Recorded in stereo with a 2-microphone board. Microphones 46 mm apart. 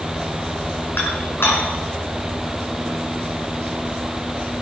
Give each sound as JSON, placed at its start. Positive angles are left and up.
{"t": 1.0, "sound": "dishes clattering", "side_deg": 55, "distance_m": 5.0}